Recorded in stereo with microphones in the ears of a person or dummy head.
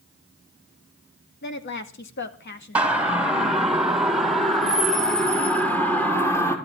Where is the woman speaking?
55° left (ahead or behind), 2 m.